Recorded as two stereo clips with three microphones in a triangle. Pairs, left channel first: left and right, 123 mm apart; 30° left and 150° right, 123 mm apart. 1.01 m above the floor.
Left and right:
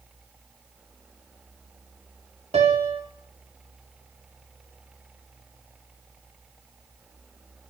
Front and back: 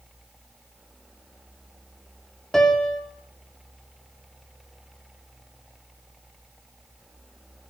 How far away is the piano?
About 3 m.